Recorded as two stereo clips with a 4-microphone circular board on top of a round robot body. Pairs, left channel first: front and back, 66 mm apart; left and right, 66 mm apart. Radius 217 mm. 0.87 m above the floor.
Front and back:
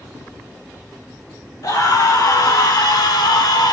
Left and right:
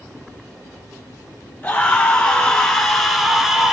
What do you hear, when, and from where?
1.6 s a scream: 25° left, 3 m; by 3.7 s 5° right, 2.5 m